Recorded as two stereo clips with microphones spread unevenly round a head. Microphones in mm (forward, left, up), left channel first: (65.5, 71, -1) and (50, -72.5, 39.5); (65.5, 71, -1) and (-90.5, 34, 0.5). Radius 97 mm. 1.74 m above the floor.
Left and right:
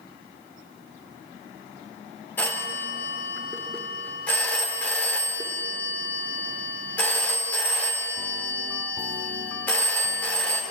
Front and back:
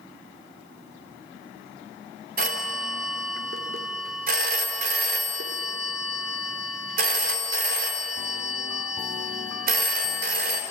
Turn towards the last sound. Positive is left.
turn(degrees=170)